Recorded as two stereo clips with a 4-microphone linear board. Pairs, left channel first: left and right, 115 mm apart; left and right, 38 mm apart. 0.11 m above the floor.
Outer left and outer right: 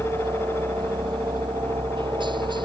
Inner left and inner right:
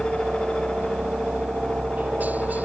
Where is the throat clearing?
No throat clearing in this recording.